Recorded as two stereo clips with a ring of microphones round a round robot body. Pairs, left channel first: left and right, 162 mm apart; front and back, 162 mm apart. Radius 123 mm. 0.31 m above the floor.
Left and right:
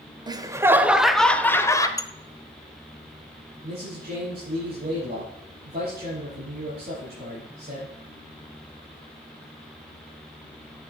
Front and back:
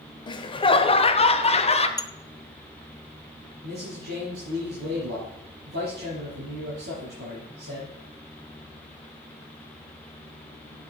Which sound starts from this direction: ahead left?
Dishes clattering, at 2.0 s.